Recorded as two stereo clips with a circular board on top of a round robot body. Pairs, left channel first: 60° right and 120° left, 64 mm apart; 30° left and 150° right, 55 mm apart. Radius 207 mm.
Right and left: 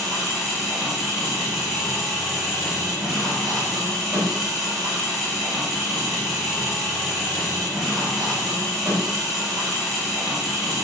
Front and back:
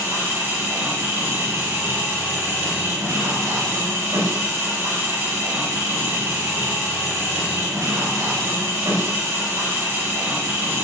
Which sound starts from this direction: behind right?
An engine running, at 0.0 s.